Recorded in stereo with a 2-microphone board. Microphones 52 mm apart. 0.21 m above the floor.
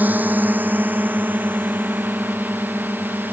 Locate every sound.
0.0 s a drone: 35° right (ahead or behind); by 3.3 s 40° right (ahead or behind)